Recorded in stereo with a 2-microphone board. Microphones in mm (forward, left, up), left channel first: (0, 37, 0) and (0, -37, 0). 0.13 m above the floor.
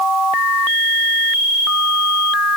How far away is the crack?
I don't hear a crack.